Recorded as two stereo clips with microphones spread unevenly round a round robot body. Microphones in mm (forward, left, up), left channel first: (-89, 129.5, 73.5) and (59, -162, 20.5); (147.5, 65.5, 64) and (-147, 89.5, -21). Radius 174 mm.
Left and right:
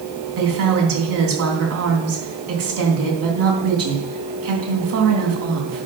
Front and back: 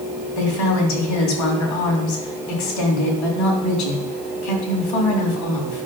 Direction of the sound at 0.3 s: 20° right.